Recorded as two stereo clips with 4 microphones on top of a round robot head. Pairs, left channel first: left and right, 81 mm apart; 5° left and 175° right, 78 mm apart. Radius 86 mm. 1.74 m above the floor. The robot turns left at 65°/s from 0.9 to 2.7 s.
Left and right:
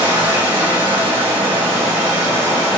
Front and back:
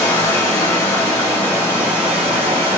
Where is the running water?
60° right, 1.2 m; by 2.8 s 175° right, 1.2 m.